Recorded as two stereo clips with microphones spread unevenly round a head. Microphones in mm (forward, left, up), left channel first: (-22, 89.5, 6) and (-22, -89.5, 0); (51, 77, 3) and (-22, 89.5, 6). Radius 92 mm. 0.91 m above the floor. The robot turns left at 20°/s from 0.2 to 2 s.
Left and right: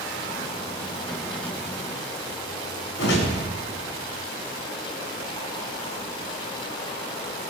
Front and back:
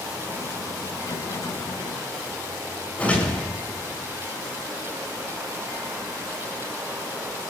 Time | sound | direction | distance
3.0 | a whoosh | 60° left | 9.5 m